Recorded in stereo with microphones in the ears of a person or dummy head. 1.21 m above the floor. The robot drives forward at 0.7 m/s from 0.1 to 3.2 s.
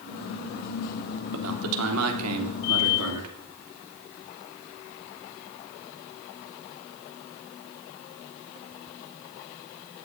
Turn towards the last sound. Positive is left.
turn(degrees=-80)